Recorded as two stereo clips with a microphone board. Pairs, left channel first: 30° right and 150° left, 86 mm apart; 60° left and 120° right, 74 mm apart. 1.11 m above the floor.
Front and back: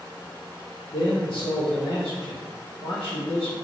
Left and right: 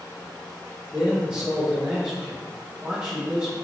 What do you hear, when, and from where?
0.9 s a man speaking: 50° right, 1.1 m